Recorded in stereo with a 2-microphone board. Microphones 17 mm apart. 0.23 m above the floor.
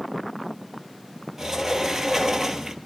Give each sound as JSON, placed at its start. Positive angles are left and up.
{"t": 1.4, "sound": "a sliding door", "side_deg": -30, "distance_m": 0.9}